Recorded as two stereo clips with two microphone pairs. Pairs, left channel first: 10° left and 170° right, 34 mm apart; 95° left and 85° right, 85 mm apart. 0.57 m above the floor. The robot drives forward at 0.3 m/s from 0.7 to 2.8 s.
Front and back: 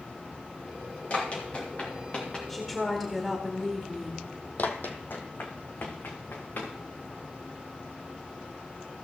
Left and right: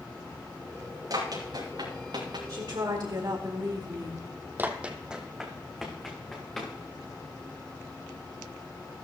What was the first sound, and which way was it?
Running footsteps, 45° right.